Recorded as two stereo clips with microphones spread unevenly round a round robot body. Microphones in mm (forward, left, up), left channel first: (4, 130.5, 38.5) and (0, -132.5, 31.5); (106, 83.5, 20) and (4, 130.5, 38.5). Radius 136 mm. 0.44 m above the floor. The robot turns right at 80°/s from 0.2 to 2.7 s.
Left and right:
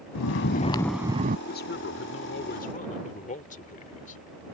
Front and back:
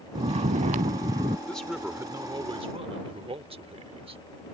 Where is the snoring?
120° left; by 1.4 s 145° right.